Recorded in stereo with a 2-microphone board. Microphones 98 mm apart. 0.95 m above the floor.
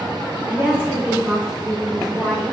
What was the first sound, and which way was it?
A woman speaking, 25° right (ahead or behind).